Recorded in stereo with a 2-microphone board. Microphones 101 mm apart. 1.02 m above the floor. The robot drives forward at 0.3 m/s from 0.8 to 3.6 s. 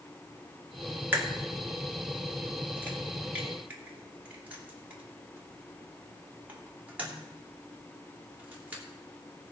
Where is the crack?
20° right (ahead or behind), 2 m; by 8.8 s 15° right (ahead or behind), 3 m.